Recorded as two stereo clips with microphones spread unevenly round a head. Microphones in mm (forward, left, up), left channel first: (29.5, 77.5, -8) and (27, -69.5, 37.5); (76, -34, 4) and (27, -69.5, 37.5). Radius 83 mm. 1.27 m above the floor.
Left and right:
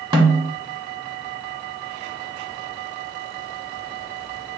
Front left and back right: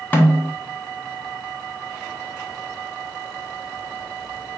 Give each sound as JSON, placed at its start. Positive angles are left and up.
{"t": 0.1, "sound": "a snare drum", "azimuth_deg": -35, "distance_m": 1.9}